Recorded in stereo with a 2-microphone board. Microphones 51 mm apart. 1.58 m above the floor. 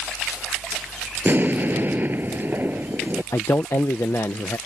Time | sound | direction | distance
1.2 | an explosion | 40° right (ahead or behind) | ?
3.3 | a man speaking | 70° left (ahead or behind) | ?